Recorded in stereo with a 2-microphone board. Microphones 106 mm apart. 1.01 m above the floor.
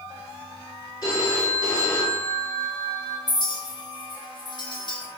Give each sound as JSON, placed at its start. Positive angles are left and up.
{"t": 1.0, "sound": "a phone ringing", "side_deg": 35, "distance_m": 1.4}
{"t": 3.3, "sound": "a clink", "side_deg": 40, "distance_m": 0.8}